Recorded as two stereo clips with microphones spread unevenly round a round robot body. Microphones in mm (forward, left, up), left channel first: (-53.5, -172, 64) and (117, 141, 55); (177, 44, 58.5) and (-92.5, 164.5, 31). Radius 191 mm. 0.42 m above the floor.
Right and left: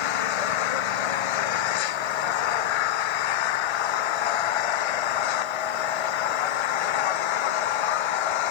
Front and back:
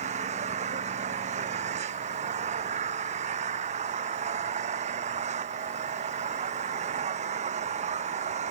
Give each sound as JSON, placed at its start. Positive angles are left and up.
{"t": 0.0, "sound": "an engine running", "azimuth_deg": -130}